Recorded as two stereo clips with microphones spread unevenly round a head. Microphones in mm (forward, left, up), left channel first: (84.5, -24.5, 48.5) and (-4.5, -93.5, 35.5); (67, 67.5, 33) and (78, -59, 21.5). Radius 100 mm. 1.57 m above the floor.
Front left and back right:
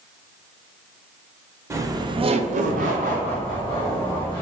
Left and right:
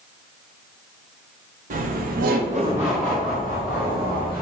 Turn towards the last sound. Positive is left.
turn(degrees=150)